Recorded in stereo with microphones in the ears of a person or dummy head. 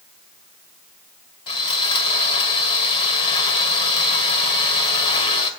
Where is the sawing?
30° left (ahead or behind), 2 m.